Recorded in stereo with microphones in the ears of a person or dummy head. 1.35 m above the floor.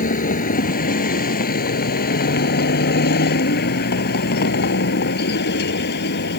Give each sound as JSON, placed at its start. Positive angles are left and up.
{"t": 0.0, "sound": "a vehicle", "side_deg": 55}